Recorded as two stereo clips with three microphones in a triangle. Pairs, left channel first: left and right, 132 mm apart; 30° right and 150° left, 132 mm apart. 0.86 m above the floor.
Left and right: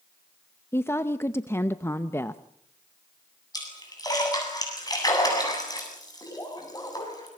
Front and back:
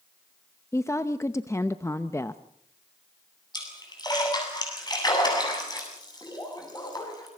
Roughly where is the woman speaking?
Ahead left.